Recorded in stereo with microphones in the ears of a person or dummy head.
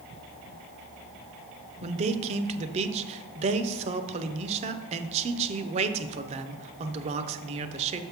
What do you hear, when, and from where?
1.8 s a man speaking: 40° right (ahead or behind), 0.6 m